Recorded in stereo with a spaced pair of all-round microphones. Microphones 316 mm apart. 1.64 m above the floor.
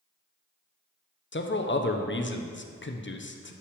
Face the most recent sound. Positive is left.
turn(degrees=40)  # may be behind; listen again after turning